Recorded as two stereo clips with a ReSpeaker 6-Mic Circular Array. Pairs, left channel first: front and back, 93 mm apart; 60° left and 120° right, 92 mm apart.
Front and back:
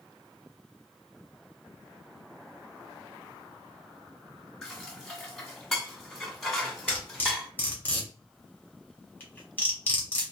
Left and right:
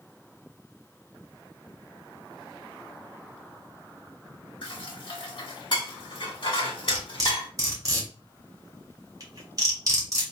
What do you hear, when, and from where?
4.6 s dishes clattering: 85° left, 1.1 m
6.9 s cutlery clinking: 70° right, 1.2 m